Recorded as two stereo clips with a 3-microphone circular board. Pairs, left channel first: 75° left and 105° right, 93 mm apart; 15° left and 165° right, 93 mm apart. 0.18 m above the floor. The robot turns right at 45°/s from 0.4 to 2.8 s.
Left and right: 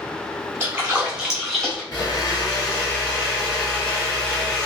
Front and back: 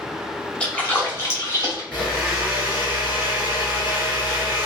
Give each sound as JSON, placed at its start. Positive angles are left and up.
{"t": 0.6, "sound": "a splash", "azimuth_deg": -50, "distance_m": 1.2}
{"t": 1.9, "sound": "a blender", "azimuth_deg": 95, "distance_m": 1.9}